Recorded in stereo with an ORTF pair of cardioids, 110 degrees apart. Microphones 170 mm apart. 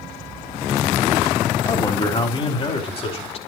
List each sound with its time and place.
1.6 s a man speaking: 25° left, 3 m; by 3.4 s 40° left, 4.5 m